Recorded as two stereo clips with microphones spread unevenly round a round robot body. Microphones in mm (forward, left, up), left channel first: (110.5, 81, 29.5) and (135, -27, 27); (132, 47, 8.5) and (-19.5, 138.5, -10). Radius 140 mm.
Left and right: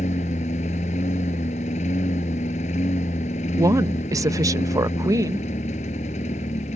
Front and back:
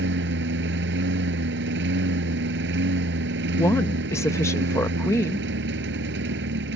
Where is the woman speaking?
105° right.